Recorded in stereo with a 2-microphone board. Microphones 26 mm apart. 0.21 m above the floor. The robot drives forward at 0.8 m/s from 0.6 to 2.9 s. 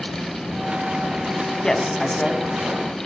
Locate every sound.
1.6 s a man speaking: 25° left (ahead or behind), 1.9 m; by 2.4 s 20° left (ahead or behind), 2.5 m